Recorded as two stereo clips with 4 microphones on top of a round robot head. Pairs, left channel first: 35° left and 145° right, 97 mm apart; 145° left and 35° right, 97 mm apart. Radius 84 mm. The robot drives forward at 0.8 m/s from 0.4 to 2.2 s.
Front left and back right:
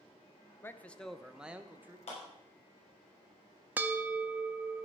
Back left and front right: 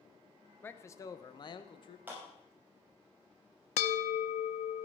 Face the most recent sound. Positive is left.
turn(degrees=145)